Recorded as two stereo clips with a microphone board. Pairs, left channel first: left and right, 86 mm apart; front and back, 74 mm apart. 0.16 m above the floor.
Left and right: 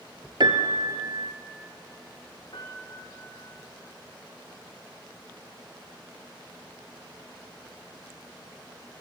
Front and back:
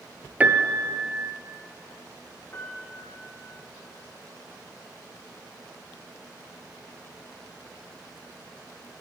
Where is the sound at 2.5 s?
60° left, 5 m.